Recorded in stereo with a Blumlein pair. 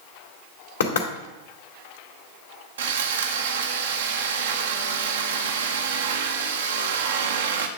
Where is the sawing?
60° right, 0.9 m.